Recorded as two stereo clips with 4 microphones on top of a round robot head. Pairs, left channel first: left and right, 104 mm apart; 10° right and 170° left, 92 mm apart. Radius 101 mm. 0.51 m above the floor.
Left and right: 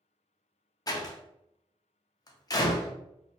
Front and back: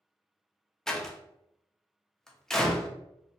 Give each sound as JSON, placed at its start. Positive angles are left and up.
{"t": 0.9, "sound": "a door slam", "azimuth_deg": 75, "distance_m": 0.6}